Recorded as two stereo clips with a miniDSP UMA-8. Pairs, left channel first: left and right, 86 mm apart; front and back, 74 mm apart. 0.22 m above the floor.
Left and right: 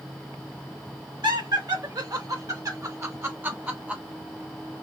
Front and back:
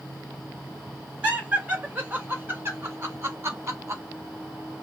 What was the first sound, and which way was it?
Laughter, 115° right.